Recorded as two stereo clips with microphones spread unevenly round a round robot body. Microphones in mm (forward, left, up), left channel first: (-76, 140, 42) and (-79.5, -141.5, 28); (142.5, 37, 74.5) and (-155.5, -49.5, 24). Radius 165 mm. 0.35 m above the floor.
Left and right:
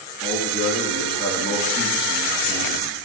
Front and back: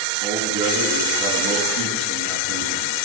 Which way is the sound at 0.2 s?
165° left.